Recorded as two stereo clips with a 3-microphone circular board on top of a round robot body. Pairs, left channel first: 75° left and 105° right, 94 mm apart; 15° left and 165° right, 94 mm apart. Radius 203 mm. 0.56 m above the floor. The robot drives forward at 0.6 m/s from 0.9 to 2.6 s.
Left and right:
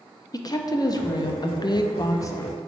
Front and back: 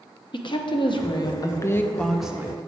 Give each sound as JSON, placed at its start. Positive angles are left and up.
{"t": 0.3, "sound": "a woman speaking", "azimuth_deg": 35, "distance_m": 1.0}